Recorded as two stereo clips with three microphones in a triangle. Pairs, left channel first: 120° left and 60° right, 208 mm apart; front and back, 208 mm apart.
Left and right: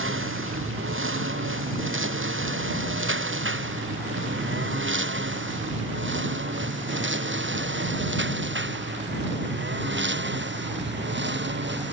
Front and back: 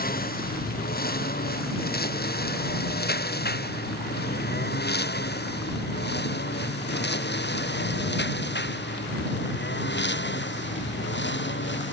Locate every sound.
0.0 s a lawn mower: 45° right; by 11.9 s 30° right